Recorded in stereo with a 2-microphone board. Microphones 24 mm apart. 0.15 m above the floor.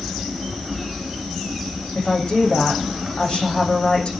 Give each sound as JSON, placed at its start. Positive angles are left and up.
{"t": 1.9, "sound": "a woman speaking", "side_deg": 55, "distance_m": 9.0}